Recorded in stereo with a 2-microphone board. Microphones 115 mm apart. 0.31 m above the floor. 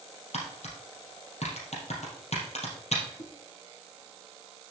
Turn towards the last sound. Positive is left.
turn(degrees=65)  # may be behind; listen again after turning